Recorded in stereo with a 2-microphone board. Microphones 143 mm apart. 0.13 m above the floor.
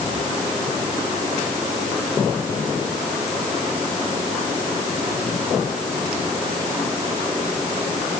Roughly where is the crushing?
No crushing in this recording.